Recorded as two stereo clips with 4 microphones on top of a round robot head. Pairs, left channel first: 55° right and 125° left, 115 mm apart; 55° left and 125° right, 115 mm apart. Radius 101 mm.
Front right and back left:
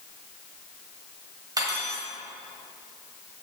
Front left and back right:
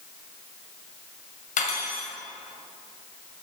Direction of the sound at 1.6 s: 65° left.